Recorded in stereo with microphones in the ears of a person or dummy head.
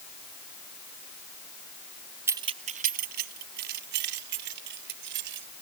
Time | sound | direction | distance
2.3 | keys jangling | 15° right (ahead or behind) | ?